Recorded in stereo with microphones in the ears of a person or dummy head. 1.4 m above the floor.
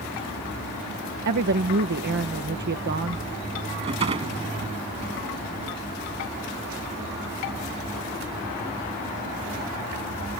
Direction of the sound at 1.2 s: 55° right (ahead or behind).